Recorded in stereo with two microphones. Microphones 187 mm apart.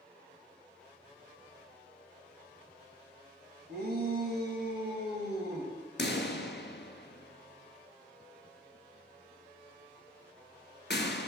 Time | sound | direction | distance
3.7 | a shout | 55° right (ahead or behind) | 2 m
6.0 | a pop | 70° left (ahead or behind) | 1.0 m